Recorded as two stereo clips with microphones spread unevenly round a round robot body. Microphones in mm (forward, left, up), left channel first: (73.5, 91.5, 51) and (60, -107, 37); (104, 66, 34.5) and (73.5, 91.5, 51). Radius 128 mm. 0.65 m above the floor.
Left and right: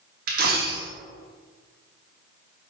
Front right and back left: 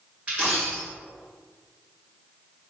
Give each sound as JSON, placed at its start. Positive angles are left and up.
{"t": 0.3, "sound": "a dropped coin", "azimuth_deg": -140, "distance_m": 0.5}